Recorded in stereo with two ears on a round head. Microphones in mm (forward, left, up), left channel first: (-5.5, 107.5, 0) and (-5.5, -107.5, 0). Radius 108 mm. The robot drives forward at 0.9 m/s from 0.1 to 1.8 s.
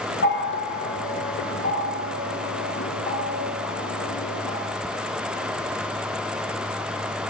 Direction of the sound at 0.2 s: 50° left (ahead or behind).